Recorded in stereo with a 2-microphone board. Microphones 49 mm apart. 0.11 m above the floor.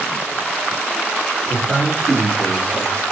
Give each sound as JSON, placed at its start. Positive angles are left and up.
{"t": 1.4, "sound": "a man speaking", "side_deg": -5, "distance_m": 1.8}